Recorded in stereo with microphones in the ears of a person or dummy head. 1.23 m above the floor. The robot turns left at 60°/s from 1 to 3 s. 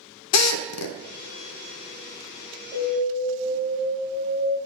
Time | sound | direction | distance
0.3 | a drill | 80° left | 0.6 m
2.7 | an alarm | 20° right (ahead or behind) | 3 m